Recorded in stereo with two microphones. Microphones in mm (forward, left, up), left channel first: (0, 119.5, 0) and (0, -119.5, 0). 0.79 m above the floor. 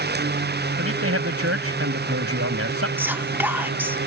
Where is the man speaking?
70° right (ahead or behind).